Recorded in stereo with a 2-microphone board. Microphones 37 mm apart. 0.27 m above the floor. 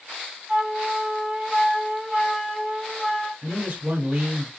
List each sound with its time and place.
0.5 s a flute: 15° right (ahead or behind), 0.8 m
3.4 s a man speaking: 40° right (ahead or behind), 1.4 m